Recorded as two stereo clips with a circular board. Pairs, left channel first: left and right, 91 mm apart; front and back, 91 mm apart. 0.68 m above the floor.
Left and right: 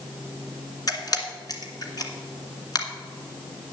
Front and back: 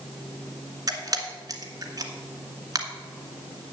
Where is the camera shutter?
135° left, 1.5 m.